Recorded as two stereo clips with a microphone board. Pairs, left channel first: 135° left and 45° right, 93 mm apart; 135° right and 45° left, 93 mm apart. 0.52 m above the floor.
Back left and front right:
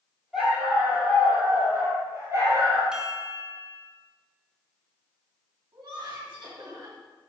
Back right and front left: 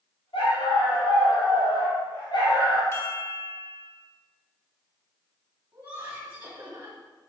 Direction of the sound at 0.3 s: 130° right.